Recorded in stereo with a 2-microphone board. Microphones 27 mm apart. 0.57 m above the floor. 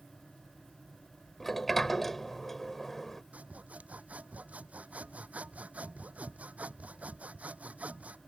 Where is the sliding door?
10° left (ahead or behind).